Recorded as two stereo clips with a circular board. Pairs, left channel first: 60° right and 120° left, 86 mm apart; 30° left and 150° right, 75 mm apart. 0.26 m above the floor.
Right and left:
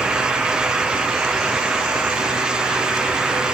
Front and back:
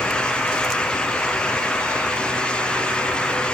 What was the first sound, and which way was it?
Only background noise.